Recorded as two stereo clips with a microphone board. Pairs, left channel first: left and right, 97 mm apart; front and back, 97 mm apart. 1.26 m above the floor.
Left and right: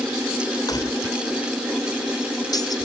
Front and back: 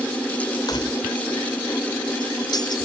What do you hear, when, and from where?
0.7 s keys jangling: 45° left